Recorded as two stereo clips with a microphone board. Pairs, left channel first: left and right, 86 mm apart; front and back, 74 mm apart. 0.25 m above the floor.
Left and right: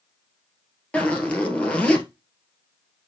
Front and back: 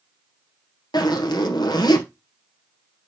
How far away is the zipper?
About 1.7 m.